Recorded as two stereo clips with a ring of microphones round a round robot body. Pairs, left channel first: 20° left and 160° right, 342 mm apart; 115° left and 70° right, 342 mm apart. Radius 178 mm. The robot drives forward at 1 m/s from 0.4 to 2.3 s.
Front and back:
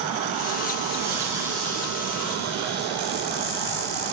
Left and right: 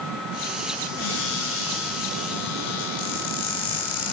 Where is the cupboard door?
120° left, 9.5 m; by 4.1 s 125° left, 10.5 m.